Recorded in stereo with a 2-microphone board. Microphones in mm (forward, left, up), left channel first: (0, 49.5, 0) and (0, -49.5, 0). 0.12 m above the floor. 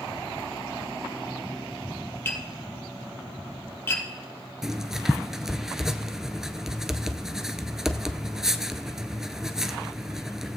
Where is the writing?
5° right (ahead or behind), 0.6 m.